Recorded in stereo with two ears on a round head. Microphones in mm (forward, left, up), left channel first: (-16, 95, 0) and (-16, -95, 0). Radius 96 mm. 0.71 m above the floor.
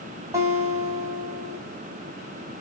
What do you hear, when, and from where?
0.3 s a guitar: 15° right (ahead or behind), 4 m